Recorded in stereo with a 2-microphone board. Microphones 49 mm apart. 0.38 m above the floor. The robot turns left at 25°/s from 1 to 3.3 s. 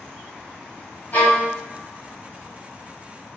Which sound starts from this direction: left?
A violin, at 1.1 s.